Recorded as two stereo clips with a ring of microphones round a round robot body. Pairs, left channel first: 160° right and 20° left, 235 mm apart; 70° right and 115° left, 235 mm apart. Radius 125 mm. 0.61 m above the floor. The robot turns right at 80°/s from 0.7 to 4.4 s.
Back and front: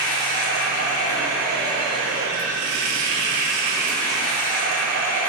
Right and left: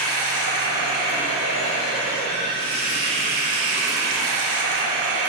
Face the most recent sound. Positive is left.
turn(degrees=150)